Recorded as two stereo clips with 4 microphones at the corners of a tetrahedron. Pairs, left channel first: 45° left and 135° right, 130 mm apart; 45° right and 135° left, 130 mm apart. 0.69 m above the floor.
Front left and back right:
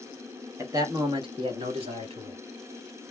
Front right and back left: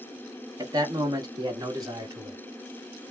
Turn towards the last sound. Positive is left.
turn(degrees=-165)